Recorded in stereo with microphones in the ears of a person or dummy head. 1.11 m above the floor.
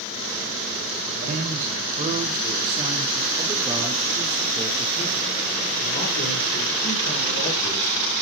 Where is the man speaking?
45° right (ahead or behind), 5 m; by 8.0 s 75° left (ahead or behind), 5.5 m.